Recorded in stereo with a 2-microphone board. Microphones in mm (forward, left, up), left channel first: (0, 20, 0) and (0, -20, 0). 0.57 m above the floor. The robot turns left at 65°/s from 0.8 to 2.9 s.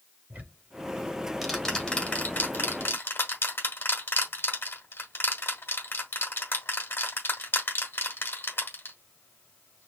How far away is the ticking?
About 1.4 m.